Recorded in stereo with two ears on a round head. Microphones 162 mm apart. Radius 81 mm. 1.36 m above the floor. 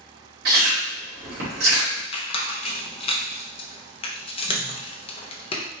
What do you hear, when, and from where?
0.5 s chewing: 60° right (ahead or behind), 2 m
2.1 s a squeak: 30° left (ahead or behind), 0.6 m